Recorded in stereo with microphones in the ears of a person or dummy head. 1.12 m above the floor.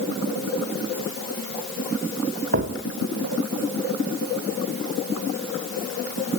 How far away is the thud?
About 1.2 m.